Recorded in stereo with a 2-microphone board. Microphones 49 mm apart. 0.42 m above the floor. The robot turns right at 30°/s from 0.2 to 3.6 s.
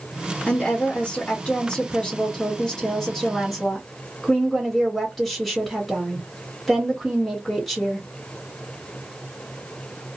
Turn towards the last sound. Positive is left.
turn(degrees=5)  # may be behind; listen again after turning